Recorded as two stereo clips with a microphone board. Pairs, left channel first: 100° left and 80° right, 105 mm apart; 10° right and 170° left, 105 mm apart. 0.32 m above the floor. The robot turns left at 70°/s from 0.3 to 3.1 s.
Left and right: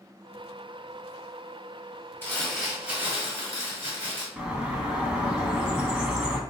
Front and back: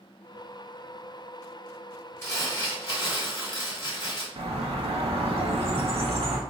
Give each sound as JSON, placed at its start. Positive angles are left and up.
{"t": 2.2, "sound": "crumpling", "azimuth_deg": 45, "distance_m": 1.2}
{"t": 4.4, "sound": "a bird", "azimuth_deg": -160, "distance_m": 0.5}